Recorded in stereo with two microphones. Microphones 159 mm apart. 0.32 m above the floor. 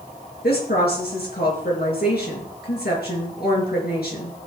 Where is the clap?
No clap in this recording.